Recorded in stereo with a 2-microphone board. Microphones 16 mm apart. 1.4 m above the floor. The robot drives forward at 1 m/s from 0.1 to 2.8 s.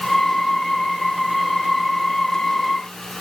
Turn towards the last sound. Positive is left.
No sound to turn to.